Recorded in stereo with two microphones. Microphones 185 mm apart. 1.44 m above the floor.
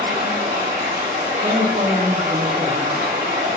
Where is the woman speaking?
25° right (ahead or behind), 0.7 m.